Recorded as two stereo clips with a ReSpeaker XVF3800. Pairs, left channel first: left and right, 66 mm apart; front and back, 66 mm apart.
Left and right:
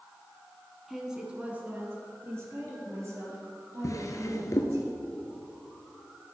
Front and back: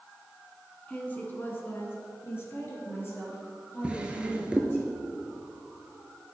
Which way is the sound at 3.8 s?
110° left.